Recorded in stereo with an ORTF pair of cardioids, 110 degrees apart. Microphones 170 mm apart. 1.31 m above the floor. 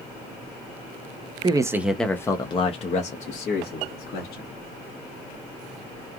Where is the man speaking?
25° right, 0.7 m; by 4.5 s 65° left, 1.7 m.